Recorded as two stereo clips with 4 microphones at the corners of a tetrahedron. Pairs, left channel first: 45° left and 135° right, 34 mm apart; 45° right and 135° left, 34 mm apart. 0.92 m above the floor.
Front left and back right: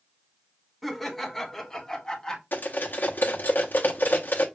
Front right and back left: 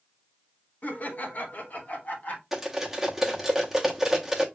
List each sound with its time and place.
0.8 s laughter: 45° right, 1.1 m; by 2.4 s 20° right, 1.8 m
2.5 s cutlery clinking: 55° left, 1.0 m